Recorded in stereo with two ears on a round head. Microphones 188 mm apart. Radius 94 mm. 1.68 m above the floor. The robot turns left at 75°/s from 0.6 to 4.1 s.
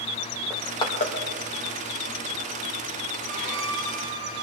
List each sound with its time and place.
0.5 s crushing: 5° left (ahead or behind), 2.5 m; by 1.1 s 45° left (ahead or behind), 2.5 m
3.2 s a violin: 35° right, 6.5 m; by 4.4 s 95° right, 6.5 m